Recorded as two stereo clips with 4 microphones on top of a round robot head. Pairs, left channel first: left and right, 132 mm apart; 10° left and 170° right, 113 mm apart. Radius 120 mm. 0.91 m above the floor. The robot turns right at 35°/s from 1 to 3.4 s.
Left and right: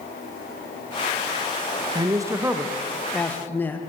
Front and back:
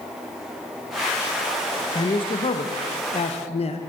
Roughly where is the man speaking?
Ahead right.